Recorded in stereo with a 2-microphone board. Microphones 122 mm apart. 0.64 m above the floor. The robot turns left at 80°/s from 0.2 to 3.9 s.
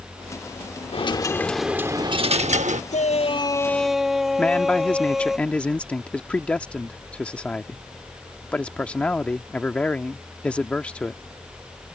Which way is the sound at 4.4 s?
10° left (ahead or behind).